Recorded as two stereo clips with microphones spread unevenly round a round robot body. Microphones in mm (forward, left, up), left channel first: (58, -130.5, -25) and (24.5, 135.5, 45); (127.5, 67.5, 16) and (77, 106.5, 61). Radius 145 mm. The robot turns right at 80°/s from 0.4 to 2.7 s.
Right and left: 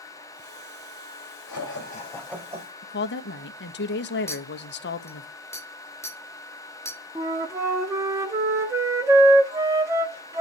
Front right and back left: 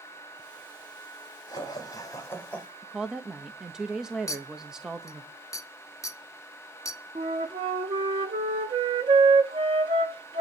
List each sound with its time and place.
1.5 s laughter: 60° right, 5 m; by 2.7 s 40° left, 5 m
2.8 s a woman speaking: 110° right, 1.1 m
4.3 s a clink: 5° right, 2 m
7.2 s a flute: straight behind, 1.0 m